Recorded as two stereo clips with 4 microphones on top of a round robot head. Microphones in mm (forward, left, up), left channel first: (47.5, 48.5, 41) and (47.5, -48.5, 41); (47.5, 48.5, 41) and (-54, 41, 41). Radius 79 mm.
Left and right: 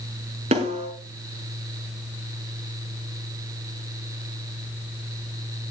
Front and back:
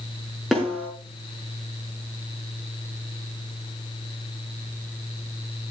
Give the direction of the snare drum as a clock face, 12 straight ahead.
3 o'clock.